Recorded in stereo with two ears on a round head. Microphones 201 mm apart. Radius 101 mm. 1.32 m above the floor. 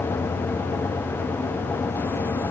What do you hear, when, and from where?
Only background noise.